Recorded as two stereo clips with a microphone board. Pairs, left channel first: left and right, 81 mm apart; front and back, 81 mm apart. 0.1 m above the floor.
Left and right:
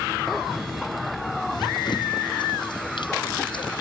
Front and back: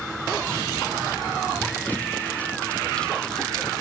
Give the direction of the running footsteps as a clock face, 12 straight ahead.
10 o'clock.